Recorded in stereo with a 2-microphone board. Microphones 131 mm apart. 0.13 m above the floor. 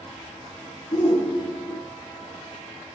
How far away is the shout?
About 1.5 m.